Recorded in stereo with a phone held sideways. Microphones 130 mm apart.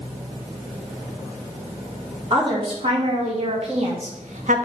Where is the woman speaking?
45° right (ahead or behind), 4.5 m; by 4.7 s 80° right, 1.5 m.